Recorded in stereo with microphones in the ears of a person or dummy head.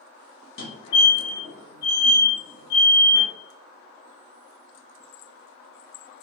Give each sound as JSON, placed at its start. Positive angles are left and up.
{"t": 0.6, "sound": "a fire alarm", "side_deg": 30, "distance_m": 1.1}